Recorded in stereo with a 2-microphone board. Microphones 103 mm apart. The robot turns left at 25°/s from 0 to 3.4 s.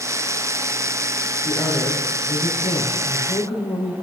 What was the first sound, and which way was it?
A woman speaking, 155° left.